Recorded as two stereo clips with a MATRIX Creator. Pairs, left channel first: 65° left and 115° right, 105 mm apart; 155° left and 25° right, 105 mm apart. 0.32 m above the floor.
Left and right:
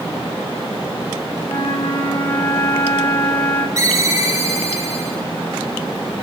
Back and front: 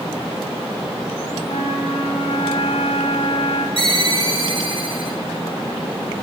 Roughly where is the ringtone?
Ahead right.